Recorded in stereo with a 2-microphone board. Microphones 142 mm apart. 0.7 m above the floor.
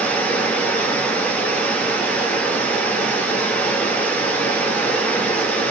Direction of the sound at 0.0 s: 10° left (ahead or behind).